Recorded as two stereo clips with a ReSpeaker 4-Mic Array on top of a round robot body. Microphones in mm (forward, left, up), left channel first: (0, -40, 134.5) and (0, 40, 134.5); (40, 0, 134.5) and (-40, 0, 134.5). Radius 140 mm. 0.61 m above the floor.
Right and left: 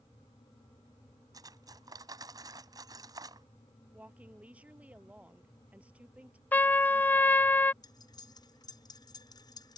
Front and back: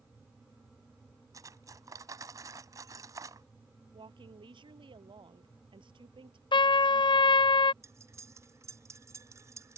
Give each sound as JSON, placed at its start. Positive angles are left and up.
{"t": 1.3, "sound": "cutlery clinking", "azimuth_deg": 130}
{"t": 3.9, "sound": "a woman speaking", "azimuth_deg": 165}
{"t": 6.5, "sound": "a trumpet", "azimuth_deg": -20}
{"t": 7.8, "sound": "cutlery clinking", "azimuth_deg": -125}